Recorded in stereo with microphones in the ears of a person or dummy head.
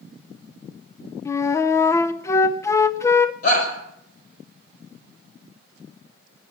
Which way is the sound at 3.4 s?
50° left (ahead or behind).